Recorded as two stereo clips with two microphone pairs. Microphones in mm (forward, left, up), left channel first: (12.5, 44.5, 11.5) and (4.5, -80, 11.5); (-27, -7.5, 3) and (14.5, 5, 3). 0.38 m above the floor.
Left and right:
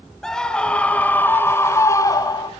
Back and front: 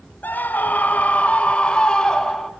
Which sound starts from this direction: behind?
A scream, at 0.2 s.